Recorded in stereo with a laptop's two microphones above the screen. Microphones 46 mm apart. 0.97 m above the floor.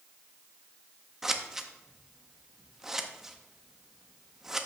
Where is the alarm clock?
I don't hear an alarm clock.